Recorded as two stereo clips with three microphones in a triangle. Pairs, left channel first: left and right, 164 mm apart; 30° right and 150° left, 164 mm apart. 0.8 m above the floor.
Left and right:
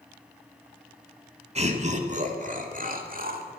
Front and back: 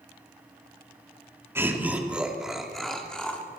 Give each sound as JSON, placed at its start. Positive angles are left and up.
{"t": 1.6, "sound": "laughter", "azimuth_deg": -135, "distance_m": 2.0}